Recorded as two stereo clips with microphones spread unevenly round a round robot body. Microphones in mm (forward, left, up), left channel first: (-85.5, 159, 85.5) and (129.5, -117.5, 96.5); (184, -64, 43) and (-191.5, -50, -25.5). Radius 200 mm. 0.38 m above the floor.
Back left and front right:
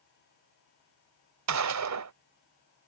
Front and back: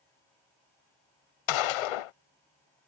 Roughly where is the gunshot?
Ahead.